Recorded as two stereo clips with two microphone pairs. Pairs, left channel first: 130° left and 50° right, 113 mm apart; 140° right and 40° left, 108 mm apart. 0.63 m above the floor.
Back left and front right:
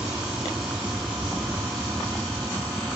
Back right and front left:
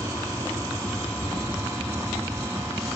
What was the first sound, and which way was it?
An aircraft, 25° left.